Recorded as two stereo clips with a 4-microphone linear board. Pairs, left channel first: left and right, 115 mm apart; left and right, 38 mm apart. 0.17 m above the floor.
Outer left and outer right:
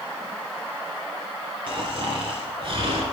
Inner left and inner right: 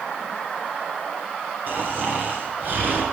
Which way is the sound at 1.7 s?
55° right (ahead or behind).